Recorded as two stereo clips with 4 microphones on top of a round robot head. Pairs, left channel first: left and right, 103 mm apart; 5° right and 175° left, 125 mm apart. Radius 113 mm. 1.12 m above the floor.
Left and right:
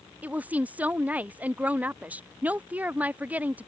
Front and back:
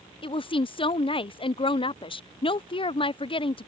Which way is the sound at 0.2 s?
20° right.